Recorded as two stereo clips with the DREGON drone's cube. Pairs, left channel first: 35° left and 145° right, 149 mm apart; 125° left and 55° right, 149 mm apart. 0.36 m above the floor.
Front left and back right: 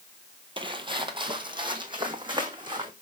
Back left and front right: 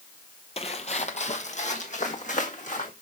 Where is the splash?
I don't hear a splash.